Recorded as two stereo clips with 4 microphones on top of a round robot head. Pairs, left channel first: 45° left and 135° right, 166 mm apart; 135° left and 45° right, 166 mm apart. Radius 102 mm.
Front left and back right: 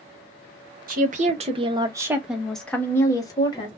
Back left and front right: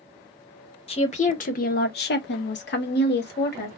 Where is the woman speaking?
170° right, 1.0 m; by 3.7 s 110° left, 1.3 m.